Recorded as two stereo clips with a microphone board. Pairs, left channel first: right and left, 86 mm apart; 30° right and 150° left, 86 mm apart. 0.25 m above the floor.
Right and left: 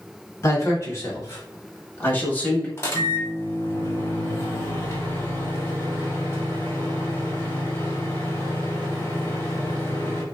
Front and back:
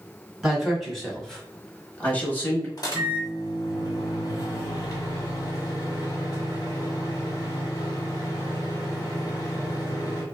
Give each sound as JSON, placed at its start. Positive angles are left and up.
{"t": 0.4, "sound": "a man speaking", "azimuth_deg": -125, "distance_m": 1.4}
{"t": 2.8, "sound": "a microwave", "azimuth_deg": -50, "distance_m": 1.2}